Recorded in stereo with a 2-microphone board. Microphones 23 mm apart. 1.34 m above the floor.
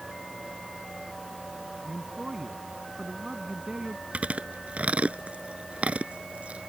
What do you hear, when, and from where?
1.9 s a man speaking: 25° right (ahead or behind)
4.1 s chewing: 65° right (ahead or behind)